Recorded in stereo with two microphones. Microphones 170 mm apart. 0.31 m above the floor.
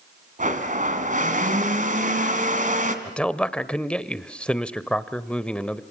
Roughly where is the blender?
Right.